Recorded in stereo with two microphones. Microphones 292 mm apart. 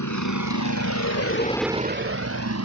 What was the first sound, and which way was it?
A vehicle, 85° left.